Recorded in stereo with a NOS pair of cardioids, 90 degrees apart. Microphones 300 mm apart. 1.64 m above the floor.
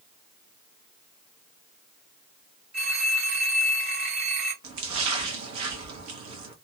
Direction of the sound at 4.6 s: 65° right.